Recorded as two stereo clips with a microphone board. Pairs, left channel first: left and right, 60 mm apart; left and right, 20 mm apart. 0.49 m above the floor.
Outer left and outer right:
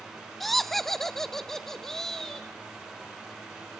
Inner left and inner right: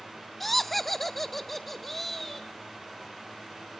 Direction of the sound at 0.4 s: 5° left (ahead or behind).